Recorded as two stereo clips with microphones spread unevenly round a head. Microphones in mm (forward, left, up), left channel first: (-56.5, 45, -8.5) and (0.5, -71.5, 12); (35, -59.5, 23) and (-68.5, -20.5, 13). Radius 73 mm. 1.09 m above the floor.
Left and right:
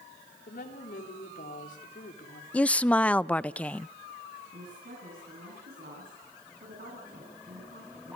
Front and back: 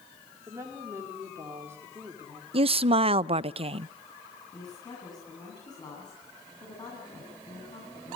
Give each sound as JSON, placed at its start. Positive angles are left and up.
{"t": 0.5, "sound": "a woman speaking", "azimuth_deg": 85, "distance_m": 3.5}
{"t": 2.5, "sound": "a woman speaking", "azimuth_deg": -165, "distance_m": 0.5}
{"t": 4.5, "sound": "a woman speaking", "azimuth_deg": -75, "distance_m": 9.0}